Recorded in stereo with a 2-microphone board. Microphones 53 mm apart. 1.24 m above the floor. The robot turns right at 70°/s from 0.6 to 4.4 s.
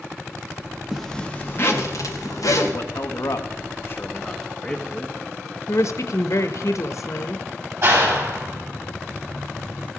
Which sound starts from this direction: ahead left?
A man speaking, at 2.7 s.